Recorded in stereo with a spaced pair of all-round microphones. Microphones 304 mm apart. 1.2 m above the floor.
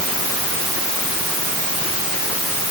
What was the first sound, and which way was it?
Only background noise.